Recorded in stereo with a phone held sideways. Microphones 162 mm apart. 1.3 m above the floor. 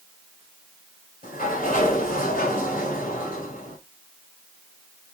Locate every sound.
1.2 s a sliding door: 60° left (ahead or behind), 2.5 m